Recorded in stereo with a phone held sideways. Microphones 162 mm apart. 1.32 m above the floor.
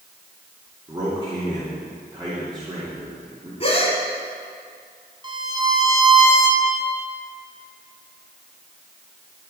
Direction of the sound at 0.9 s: 25° right (ahead or behind).